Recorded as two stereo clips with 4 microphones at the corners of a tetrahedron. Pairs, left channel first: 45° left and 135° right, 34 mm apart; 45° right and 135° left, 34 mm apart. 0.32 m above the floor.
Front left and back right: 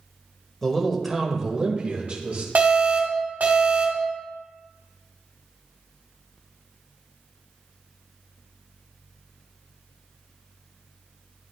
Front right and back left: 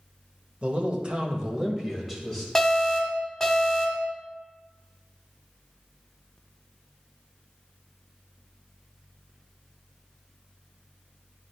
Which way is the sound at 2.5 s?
125° right.